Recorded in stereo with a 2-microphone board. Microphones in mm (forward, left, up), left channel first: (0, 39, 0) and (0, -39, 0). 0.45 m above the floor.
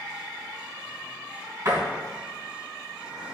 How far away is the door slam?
About 3 m.